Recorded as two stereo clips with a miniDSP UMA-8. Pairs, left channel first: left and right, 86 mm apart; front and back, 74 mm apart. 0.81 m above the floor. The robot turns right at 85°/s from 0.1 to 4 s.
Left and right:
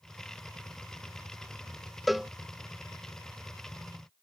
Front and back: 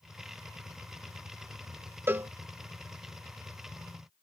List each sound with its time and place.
2.1 s a cowbell: straight behind; by 2.3 s 160° right